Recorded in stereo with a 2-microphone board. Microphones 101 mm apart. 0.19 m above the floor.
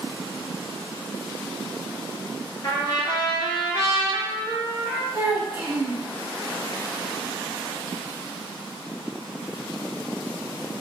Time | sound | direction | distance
2.6 | a trumpet | 45° left (ahead or behind) | 0.9 m
5.1 | a child speaking | 25° right (ahead or behind) | 0.8 m